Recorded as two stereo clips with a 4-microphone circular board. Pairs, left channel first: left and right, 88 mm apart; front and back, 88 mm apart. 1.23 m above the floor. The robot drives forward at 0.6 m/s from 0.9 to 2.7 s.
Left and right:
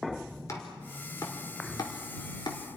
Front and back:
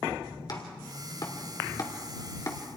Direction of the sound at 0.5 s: 35° left.